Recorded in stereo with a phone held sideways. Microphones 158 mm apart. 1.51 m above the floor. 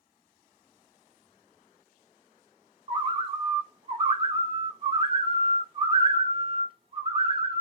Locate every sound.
2.9 s a bird: 35° right (ahead or behind), 0.6 m